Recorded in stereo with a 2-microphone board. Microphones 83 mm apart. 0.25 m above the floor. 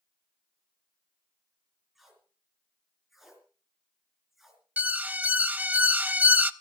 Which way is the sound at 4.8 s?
20° right (ahead or behind).